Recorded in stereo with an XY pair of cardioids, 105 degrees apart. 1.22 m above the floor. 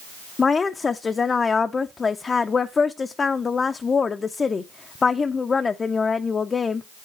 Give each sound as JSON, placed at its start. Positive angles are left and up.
{"t": 0.4, "sound": "a woman speaking", "azimuth_deg": 35, "distance_m": 0.6}